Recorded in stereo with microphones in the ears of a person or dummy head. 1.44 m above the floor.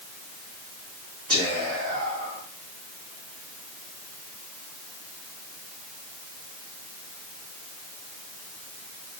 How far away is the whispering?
About 1.6 m.